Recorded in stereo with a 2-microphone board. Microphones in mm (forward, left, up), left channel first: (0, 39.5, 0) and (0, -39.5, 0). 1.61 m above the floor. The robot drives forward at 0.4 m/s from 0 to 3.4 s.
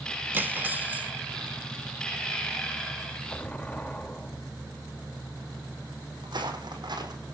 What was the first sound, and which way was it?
Cutlery clinking, 25° right (ahead or behind).